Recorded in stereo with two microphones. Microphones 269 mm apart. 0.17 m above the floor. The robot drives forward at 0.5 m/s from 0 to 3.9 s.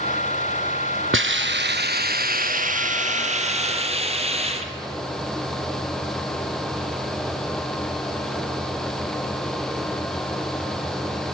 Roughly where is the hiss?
Right.